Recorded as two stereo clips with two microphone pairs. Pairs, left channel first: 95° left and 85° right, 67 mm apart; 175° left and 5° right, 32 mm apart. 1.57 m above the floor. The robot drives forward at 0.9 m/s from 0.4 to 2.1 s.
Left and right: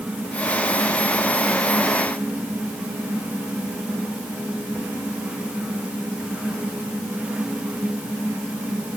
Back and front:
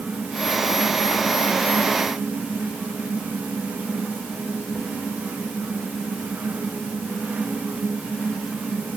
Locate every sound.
Only background noise.